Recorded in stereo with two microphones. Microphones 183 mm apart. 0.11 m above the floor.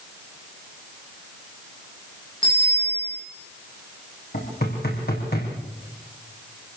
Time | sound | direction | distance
2.4 | a bicycle bell | 30° left (ahead or behind) | 8.5 m
4.3 | knocking | 60° left (ahead or behind) | 5.5 m